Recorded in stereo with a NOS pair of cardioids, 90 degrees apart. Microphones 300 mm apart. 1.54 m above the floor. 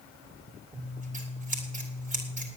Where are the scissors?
25° right, 4.5 m.